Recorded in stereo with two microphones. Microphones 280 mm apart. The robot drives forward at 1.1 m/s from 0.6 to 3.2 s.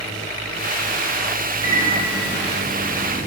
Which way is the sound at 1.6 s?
65° right (ahead or behind).